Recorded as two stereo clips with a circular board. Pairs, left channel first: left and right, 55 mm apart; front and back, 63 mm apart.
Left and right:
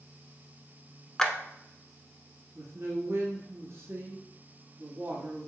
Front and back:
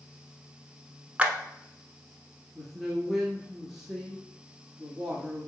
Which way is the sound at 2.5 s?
90° right.